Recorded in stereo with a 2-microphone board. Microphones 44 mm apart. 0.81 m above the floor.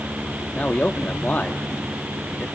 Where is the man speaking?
40° left (ahead or behind), 1.3 m.